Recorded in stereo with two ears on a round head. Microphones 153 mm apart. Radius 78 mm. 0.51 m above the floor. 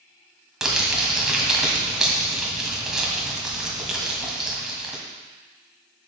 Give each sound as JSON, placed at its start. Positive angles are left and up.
{"t": 0.6, "sound": "crumpling", "side_deg": -5, "distance_m": 1.9}